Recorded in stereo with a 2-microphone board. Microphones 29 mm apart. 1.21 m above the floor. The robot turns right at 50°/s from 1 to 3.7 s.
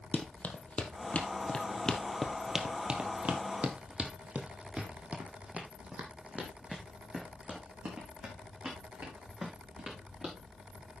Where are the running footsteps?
45° left (ahead or behind), 2 m; by 10.3 s 35° right (ahead or behind), 5.5 m.